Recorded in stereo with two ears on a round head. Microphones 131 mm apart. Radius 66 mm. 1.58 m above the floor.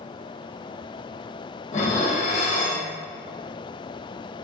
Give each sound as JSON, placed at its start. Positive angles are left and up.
{"t": 1.7, "sound": "dishes clattering", "side_deg": 50, "distance_m": 1.1}